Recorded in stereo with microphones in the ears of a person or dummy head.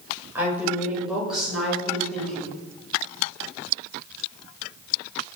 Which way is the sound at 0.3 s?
15° right (ahead or behind).